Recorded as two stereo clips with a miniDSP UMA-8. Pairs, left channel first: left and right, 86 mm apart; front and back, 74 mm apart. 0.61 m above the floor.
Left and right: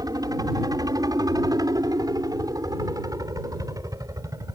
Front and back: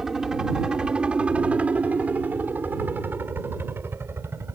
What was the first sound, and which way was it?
A helicopter, 100° right.